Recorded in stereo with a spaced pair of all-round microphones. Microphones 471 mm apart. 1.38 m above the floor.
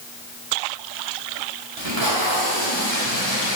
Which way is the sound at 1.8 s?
65° right (ahead or behind).